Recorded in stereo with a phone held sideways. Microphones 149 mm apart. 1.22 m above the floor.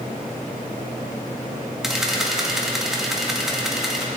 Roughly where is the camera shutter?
Centre.